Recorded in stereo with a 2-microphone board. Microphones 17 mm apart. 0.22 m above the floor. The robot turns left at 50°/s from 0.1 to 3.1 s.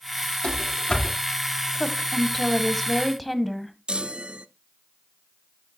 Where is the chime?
60° right (ahead or behind), 0.7 m.